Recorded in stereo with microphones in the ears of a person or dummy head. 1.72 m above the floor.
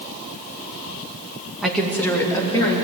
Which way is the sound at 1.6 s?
5° left (ahead or behind).